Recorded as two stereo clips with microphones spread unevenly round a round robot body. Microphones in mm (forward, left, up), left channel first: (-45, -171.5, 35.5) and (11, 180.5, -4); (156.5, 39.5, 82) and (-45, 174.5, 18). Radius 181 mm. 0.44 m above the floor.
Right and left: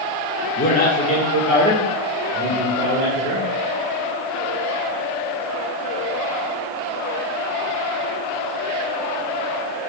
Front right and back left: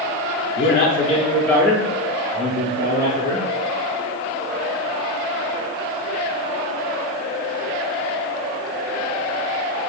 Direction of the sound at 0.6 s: 40° right.